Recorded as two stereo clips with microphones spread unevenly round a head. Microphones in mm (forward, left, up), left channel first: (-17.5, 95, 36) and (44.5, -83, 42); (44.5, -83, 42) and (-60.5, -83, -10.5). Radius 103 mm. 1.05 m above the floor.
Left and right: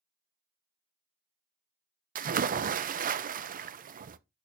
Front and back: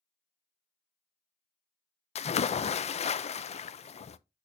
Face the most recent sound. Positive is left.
turn(degrees=-35)